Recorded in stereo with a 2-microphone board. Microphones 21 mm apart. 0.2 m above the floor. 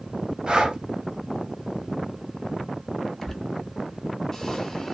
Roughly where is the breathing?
Right.